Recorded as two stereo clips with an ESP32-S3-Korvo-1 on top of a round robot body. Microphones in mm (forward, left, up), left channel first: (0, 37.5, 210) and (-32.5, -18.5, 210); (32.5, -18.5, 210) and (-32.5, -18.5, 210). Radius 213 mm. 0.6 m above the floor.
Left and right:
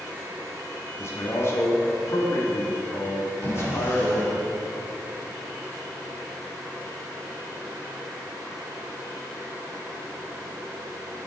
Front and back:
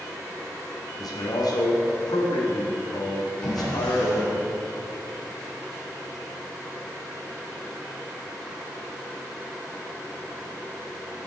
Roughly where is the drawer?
Right.